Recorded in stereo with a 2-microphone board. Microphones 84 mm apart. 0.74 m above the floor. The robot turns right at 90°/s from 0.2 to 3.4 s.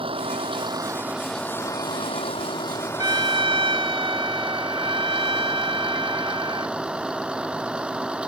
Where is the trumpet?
130° right; by 6.8 s 95° right.